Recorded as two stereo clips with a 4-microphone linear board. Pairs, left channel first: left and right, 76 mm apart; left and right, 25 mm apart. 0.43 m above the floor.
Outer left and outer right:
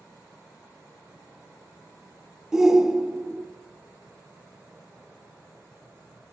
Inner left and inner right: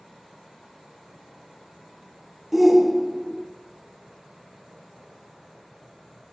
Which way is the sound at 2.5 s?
10° right (ahead or behind).